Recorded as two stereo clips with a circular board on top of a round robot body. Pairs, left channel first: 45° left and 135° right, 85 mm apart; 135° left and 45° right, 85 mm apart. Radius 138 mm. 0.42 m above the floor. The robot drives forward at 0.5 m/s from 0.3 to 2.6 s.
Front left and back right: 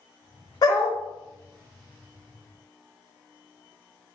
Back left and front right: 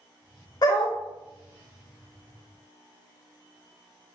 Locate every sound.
0.6 s a dog barking: 90° left, 0.6 m; by 1.0 s 110° left, 0.6 m